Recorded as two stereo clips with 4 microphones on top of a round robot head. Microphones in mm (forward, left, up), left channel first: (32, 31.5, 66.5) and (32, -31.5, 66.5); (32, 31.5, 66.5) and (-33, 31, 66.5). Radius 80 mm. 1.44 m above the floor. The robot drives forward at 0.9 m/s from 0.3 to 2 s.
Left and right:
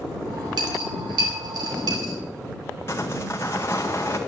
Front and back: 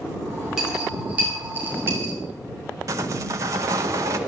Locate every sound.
0.6 s a dropped coin: 95° right, 3 m; by 2.1 s 120° right, 3.5 m
2.9 s sawing: 155° left, 0.7 m